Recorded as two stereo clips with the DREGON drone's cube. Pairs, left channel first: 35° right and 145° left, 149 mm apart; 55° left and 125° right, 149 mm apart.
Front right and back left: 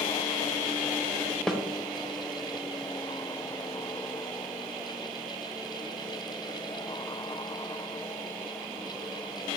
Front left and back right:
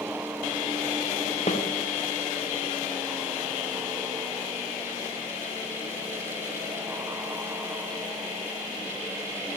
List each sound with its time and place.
1.5 s a snare drum: 50° left, 0.6 m